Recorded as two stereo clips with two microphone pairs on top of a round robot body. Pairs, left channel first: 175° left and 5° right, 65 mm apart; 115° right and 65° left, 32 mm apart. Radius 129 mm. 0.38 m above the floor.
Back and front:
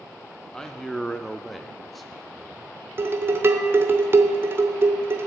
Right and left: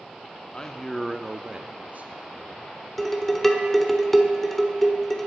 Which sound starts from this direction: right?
A man speaking, at 0.5 s.